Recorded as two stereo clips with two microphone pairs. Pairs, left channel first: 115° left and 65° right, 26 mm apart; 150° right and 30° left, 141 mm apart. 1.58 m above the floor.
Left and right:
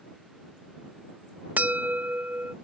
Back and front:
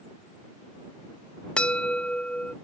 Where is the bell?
65° right.